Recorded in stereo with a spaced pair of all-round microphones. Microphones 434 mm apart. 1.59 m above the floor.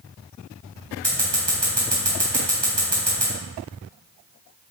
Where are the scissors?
75° right (ahead or behind), 4 m.